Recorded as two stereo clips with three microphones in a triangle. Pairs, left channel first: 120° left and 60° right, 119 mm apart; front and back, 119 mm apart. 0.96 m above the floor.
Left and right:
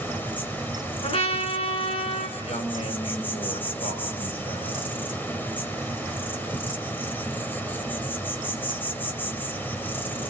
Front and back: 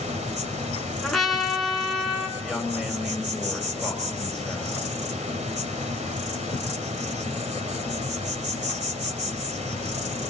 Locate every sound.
0.0 s an insect: 165° right, 2 m
1.0 s a trumpet: 90° left, 3.5 m
2.4 s a woman speaking: 95° left, 6 m